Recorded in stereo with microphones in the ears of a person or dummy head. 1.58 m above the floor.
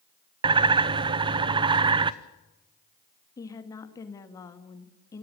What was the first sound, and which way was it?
A bird, 25° right (ahead or behind).